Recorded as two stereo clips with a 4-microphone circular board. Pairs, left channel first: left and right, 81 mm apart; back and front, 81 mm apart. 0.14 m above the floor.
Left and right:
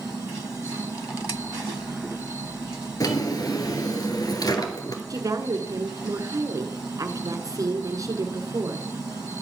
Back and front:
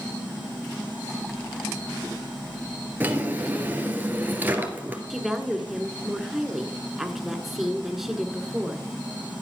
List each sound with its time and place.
3.0 s a drawer: 65° left, 1.7 m
5.1 s a woman speaking: 85° right, 1.5 m